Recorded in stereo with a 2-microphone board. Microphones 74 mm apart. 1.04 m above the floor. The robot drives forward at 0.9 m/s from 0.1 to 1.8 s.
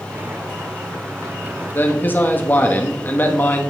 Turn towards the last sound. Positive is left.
turn(degrees=25)  # may be behind; listen again after turning